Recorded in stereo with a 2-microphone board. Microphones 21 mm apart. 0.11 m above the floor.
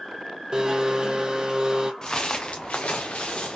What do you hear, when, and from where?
0.5 s a blender: 35° right (ahead or behind), 0.6 m
2.0 s footsteps: 35° left (ahead or behind), 0.9 m; by 3.6 s 65° left (ahead or behind), 1.1 m